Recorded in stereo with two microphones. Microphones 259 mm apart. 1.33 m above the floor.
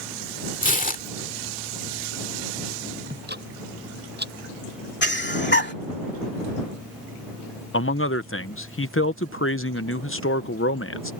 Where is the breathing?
40° left (ahead or behind).